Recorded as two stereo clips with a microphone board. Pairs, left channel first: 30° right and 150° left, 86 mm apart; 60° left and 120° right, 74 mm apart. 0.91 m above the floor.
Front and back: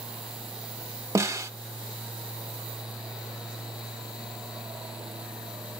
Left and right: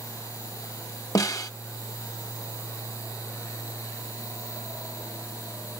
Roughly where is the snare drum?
Left.